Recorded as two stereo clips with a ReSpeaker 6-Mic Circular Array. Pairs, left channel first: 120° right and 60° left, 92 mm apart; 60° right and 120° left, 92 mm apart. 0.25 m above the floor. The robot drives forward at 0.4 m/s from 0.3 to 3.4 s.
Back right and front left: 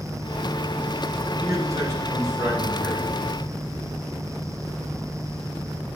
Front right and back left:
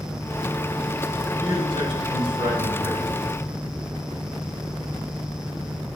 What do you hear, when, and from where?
1.4 s a man speaking: 115° left, 3.5 m; by 3.1 s 125° left, 4 m